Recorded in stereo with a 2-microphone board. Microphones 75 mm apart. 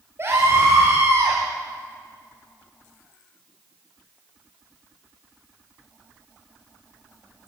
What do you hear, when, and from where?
0.2 s a scream: 35° right (ahead or behind), 4 m